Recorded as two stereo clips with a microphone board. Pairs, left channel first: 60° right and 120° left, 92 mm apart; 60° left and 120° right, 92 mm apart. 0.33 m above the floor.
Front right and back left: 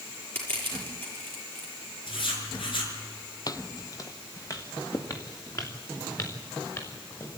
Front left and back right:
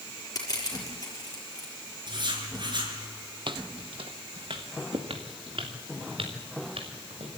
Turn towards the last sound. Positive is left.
turn(degrees=-115)